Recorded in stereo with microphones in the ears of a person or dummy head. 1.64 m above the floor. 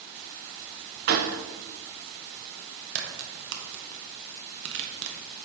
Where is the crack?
65° right (ahead or behind), 1.3 m.